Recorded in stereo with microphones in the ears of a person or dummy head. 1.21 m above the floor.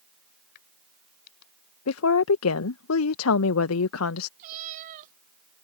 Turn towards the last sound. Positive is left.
turn(degrees=-45)  # may be behind; listen again after turning